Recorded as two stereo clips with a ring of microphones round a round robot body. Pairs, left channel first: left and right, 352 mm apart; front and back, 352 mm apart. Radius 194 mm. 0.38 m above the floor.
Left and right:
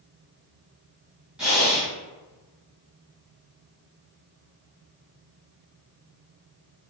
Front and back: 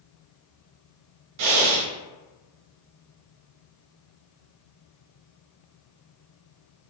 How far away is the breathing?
About 0.6 m.